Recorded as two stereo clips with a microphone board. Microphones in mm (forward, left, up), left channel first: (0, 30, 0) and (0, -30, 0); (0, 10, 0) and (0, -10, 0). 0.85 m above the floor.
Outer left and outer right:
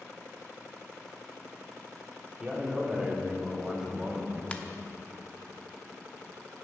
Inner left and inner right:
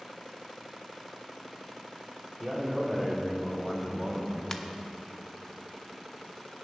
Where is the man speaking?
10° right (ahead or behind), 2.5 m; by 4.4 s 15° right (ahead or behind), 1.5 m.